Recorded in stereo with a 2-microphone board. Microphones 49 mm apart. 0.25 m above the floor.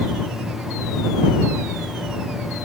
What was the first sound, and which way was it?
Only background noise.